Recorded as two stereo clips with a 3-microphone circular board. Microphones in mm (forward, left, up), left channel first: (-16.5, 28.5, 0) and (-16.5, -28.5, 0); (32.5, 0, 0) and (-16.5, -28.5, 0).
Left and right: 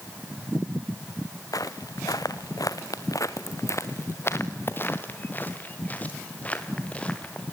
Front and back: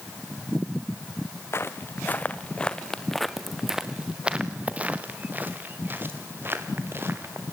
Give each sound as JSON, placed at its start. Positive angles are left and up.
{"t": 1.5, "sound": "footsteps", "azimuth_deg": 75, "distance_m": 1.4}